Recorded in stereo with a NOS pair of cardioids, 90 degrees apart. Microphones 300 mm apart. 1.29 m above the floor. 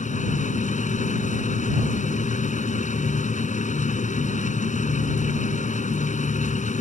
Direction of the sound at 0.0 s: 25° left.